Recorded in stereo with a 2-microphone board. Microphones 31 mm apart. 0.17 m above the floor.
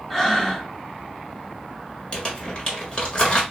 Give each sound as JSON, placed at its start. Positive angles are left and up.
{"t": 0.1, "sound": "breathing", "side_deg": 10, "distance_m": 0.7}
{"t": 2.1, "sound": "crumpling", "side_deg": 35, "distance_m": 1.4}